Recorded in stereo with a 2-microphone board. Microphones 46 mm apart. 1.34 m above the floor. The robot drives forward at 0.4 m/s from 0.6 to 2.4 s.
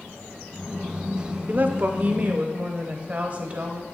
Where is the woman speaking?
45° right (ahead or behind), 0.6 m; by 3.8 s 30° right (ahead or behind), 0.9 m.